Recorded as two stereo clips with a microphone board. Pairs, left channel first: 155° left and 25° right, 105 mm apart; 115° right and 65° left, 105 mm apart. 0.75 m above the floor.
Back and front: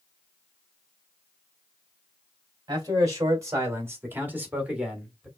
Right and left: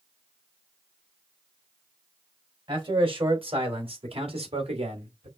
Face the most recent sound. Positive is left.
turn(degrees=65)